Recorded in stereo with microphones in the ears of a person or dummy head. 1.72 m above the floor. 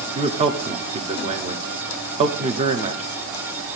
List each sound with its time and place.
0.1 s a man speaking: 35° right (ahead or behind), 0.8 m